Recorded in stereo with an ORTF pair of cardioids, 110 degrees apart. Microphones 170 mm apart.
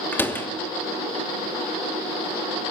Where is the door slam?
10° left, 2.5 m.